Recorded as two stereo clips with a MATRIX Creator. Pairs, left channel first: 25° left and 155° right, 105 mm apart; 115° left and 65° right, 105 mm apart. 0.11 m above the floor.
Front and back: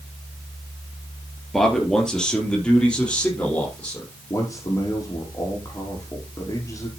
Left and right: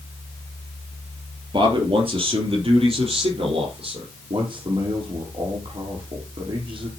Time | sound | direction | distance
1.5 | a man speaking | 65° right | 2.5 m
4.3 | a man speaking | 35° right | 3.5 m